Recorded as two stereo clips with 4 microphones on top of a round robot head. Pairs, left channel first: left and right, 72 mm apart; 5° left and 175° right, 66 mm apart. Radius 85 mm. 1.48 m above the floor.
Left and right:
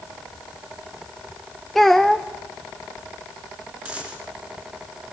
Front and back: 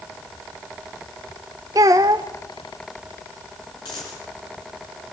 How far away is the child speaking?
About 0.6 m.